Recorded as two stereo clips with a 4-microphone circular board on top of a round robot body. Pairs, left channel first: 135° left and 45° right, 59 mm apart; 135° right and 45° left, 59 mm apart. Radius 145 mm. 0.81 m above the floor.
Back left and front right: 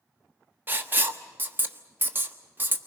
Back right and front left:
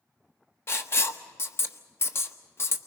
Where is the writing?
95° right, 1.3 m.